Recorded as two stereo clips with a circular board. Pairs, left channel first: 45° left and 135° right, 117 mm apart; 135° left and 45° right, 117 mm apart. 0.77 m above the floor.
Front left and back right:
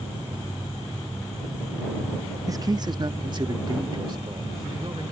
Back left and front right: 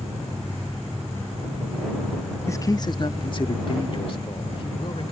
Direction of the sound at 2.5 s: 175° right.